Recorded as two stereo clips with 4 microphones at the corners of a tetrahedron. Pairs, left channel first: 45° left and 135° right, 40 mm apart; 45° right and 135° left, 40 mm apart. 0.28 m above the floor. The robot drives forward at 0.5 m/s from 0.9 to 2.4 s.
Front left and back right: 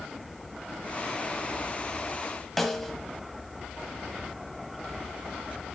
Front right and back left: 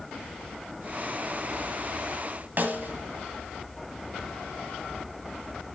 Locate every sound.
2.6 s a snare drum: 125° left, 1.2 m